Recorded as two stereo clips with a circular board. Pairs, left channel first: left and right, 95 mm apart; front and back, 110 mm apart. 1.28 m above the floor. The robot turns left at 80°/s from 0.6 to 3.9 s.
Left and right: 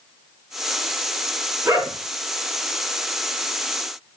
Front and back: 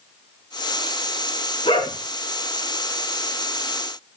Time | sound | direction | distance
1.6 | a dog barking | 20° right | 8.5 m